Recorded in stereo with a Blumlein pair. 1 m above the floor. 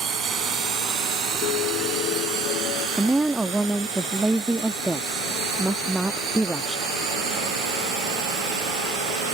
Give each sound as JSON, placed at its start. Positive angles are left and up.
{"t": 0.0, "sound": "a drone", "azimuth_deg": -25}
{"t": 1.4, "sound": "a piano", "azimuth_deg": 40}
{"t": 3.0, "sound": "a woman speaking", "azimuth_deg": -5}